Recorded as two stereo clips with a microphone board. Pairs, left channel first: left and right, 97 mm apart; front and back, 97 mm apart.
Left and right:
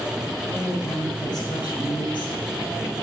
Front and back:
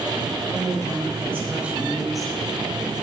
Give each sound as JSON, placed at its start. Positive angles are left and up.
{"t": 0.5, "sound": "a woman speaking", "azimuth_deg": 145, "distance_m": 3.0}